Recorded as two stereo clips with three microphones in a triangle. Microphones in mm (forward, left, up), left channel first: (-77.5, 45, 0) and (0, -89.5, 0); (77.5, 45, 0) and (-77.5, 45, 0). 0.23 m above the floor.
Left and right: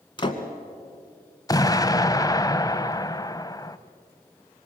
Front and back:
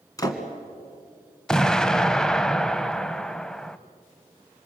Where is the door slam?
65° left, 2.0 m.